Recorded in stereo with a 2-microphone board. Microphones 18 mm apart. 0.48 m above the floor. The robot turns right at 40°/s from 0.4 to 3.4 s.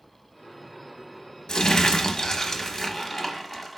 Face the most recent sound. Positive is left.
turn(degrees=175)